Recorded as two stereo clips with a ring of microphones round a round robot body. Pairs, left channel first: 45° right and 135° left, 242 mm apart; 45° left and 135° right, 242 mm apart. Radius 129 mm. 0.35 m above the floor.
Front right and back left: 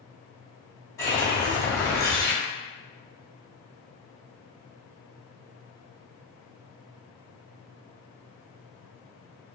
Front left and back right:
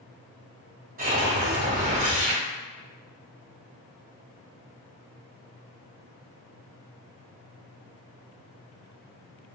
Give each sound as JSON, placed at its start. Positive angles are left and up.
{"t": 1.0, "sound": "a whoosh", "azimuth_deg": -115, "distance_m": 1.9}